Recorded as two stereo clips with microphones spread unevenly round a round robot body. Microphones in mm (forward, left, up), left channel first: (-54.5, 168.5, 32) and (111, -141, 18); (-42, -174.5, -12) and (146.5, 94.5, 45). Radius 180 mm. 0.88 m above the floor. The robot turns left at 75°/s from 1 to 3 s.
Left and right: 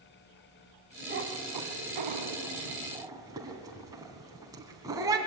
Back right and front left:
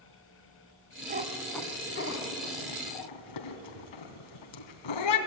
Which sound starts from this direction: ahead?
A cat meowing, at 1.1 s.